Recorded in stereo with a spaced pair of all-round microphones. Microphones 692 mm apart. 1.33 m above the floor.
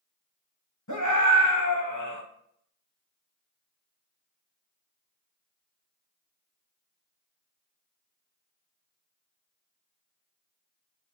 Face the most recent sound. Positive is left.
turn(degrees=25)  # may be behind; listen again after turning